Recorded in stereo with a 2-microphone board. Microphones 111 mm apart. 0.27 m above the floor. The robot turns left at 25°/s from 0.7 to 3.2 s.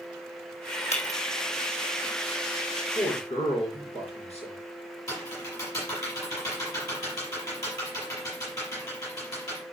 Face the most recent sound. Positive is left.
turn(degrees=30)  # may be behind; listen again after turning